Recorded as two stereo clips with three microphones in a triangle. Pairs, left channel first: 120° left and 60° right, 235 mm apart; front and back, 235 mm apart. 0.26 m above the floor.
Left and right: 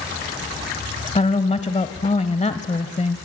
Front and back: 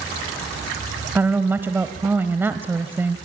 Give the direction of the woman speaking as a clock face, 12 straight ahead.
8 o'clock.